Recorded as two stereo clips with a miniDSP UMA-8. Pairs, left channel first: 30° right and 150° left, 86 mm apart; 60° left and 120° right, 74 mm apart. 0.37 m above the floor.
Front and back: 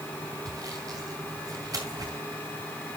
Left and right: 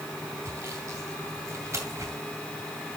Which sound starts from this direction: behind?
Sawing, at 0.5 s.